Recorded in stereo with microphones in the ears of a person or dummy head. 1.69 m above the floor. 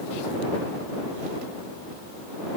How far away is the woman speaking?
No woman speaking in this recording.